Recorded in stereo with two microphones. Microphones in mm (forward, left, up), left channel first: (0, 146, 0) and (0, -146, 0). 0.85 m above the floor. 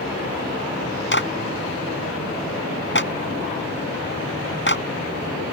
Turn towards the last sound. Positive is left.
turn(degrees=40)  # may be behind; listen again after turning